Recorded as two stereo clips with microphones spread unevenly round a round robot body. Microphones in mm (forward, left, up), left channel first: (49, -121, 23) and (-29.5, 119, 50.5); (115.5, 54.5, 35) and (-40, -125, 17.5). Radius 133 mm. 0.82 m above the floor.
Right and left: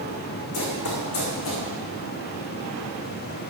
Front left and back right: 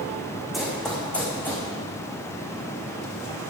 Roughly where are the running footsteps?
Ahead right.